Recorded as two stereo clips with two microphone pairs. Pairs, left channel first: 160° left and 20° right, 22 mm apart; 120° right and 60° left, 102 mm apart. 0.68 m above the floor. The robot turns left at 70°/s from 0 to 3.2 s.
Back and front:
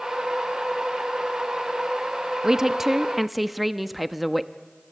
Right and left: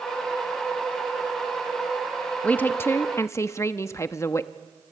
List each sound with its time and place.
2.4 s a woman speaking: 60° right, 0.7 m; by 4.5 s 110° right, 0.7 m